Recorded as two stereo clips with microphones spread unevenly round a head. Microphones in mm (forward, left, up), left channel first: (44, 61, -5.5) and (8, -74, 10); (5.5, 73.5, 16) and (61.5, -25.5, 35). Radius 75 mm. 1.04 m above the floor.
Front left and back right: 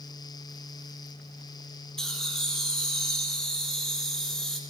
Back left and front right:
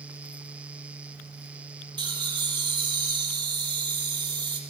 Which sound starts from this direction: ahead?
Laughter, at 2.0 s.